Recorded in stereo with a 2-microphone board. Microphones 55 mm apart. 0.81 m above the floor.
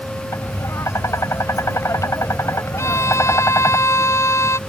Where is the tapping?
80° left.